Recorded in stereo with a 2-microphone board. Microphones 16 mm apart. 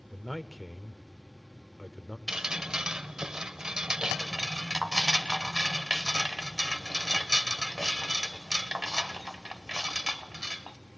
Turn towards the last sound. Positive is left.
turn(degrees=-55)  # may be behind; listen again after turning